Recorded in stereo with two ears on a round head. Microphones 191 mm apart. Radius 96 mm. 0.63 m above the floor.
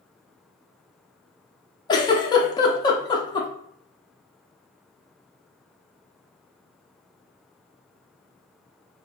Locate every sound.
1.9 s a giggle: 20° left (ahead or behind), 0.5 m